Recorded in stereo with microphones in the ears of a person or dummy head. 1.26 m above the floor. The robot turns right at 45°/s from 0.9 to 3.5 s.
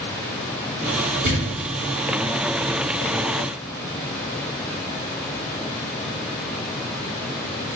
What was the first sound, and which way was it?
A thud, 50° right (ahead or behind).